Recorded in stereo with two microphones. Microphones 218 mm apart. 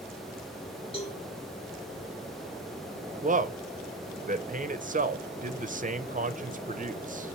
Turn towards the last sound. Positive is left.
turn(degrees=-40)  # may be behind; listen again after turning